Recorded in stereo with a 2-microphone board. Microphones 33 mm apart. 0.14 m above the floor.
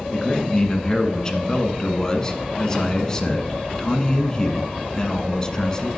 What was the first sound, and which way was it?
A man speaking, 20° left (ahead or behind).